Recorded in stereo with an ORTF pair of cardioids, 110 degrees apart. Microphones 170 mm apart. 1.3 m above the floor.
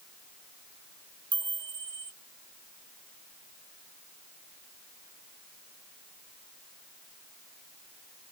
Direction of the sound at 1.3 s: 25° right.